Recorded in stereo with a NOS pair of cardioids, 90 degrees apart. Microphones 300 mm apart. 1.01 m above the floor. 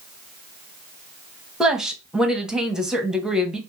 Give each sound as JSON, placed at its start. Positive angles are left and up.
{"t": 1.6, "sound": "a woman speaking", "azimuth_deg": 0, "distance_m": 0.9}